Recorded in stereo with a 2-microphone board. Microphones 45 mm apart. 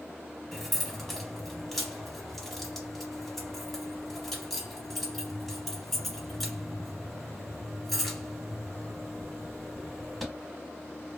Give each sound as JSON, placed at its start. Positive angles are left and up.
{"t": 0.5, "sound": "keys jangling", "side_deg": 5, "distance_m": 1.0}